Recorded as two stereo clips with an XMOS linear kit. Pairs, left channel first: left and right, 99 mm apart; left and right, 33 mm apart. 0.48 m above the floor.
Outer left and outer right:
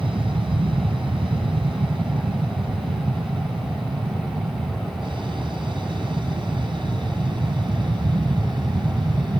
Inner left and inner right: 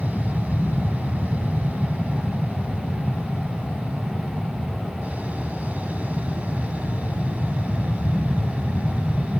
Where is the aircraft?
60° right (ahead or behind); by 9.4 s 50° right (ahead or behind).